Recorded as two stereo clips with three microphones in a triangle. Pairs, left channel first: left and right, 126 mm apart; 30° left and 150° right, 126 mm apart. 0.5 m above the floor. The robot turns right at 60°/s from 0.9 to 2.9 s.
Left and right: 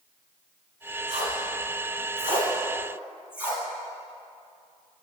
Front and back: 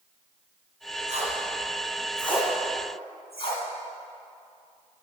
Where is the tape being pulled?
120° right, 2.5 m; by 3.6 s 10° right, 2.5 m.